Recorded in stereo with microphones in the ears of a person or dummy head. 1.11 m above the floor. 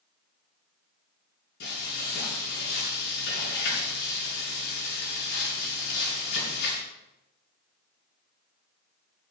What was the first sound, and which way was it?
Frying, 65° left (ahead or behind).